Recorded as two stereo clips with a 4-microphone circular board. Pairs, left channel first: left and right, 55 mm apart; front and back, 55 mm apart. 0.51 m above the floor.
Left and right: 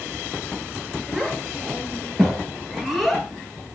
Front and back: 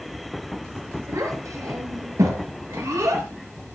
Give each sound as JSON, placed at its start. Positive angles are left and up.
{"t": 1.1, "sound": "a child speaking", "azimuth_deg": 175, "distance_m": 8.0}